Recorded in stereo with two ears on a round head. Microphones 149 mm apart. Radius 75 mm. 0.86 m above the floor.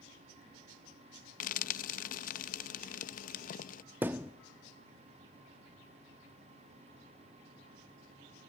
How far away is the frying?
About 0.5 m.